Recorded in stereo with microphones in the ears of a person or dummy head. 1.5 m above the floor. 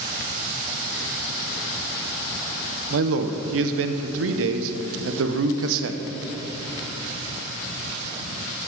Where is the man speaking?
70° right (ahead or behind), 0.7 m.